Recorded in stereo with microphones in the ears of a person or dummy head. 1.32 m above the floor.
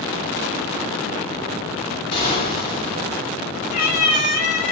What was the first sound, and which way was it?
An explosion, 30° left (ahead or behind).